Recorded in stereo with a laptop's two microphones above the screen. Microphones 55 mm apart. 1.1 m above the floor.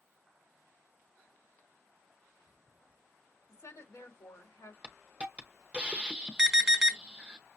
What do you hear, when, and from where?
3.5 s a woman speaking: 70° left (ahead or behind), 2.5 m
4.8 s a hiss: 25° right (ahead or behind), 0.7 m
6.4 s an alarm: 15° right (ahead or behind), 1.2 m